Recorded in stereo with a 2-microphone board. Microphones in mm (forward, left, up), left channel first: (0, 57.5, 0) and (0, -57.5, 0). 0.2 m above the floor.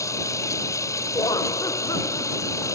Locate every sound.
0.0 s running water: 30° left (ahead or behind)
1.1 s laughter: 35° left (ahead or behind)